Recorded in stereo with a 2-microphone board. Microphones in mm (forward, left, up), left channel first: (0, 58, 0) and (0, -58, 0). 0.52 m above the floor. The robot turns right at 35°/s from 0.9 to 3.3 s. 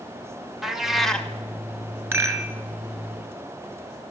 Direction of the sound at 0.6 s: 5° right (ahead or behind).